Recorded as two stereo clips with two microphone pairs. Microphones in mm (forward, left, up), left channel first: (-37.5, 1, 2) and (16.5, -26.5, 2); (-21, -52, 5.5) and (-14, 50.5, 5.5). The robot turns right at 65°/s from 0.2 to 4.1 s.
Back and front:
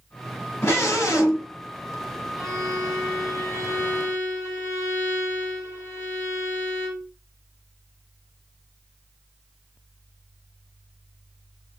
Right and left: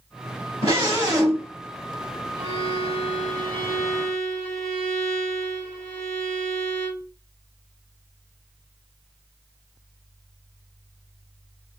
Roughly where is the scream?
Behind left.